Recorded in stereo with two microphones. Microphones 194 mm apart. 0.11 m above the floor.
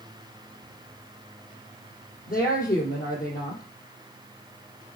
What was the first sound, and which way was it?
A woman speaking, 50° left (ahead or behind).